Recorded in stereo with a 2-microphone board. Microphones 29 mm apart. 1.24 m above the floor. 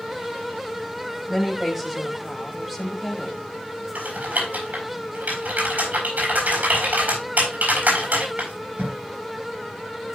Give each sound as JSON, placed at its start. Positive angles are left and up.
{"t": 1.3, "sound": "a woman speaking", "side_deg": -10, "distance_m": 3.5}
{"t": 4.0, "sound": "typing on a keyboard", "side_deg": -75, "distance_m": 6.5}